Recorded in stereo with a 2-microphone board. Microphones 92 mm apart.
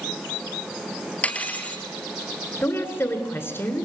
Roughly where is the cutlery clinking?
Centre.